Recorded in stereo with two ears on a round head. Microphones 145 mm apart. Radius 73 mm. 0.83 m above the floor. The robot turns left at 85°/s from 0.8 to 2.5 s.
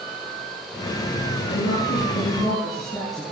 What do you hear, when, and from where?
1.5 s a woman speaking: 105° left, 7.5 m; by 3.2 s 20° left, 7.5 m